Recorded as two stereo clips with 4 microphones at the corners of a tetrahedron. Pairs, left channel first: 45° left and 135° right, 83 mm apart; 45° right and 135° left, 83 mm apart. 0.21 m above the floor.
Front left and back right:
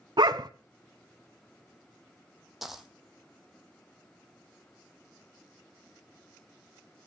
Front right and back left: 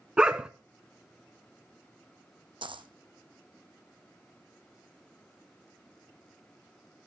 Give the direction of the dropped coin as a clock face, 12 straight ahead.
7 o'clock.